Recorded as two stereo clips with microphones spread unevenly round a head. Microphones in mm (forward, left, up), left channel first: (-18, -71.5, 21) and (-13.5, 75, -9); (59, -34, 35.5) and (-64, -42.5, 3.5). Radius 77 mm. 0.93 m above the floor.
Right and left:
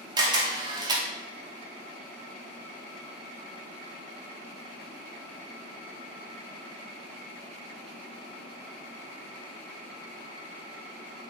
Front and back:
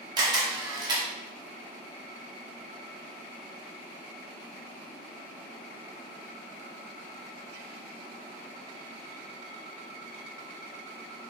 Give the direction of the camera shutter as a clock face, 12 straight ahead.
7 o'clock.